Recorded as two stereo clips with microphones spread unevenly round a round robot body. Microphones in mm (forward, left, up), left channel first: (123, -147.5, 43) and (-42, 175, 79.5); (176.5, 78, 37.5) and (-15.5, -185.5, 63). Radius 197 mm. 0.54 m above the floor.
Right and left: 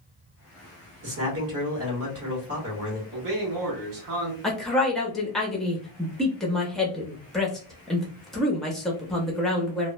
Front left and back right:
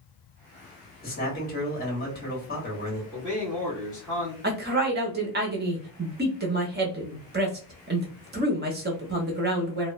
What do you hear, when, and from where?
1.0 s a man speaking: 90° left, 1.4 m
3.1 s a man speaking: 145° left, 1.0 m
4.4 s a woman speaking: 135° right, 0.8 m